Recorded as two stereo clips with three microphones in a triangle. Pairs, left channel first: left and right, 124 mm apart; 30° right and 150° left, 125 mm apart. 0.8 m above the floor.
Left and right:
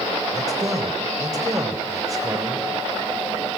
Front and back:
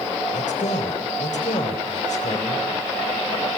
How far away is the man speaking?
About 3.5 m.